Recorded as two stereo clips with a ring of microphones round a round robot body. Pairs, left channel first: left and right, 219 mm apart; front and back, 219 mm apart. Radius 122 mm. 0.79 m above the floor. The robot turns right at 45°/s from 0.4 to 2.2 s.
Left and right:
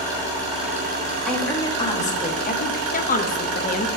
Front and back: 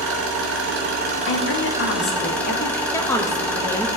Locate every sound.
0.0 s an engine running: 165° right, 2.5 m; by 4.0 s 85° right, 2.5 m
1.3 s a woman speaking: straight ahead, 1.6 m; by 2.8 s 45° left, 1.6 m
2.9 s a woman speaking: 70° left, 0.9 m